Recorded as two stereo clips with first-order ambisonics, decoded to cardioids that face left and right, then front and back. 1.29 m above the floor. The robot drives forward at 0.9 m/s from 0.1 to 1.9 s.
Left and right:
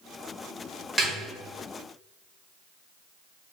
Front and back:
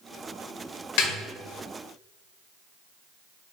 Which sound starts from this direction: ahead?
A snare drum, at 1.0 s.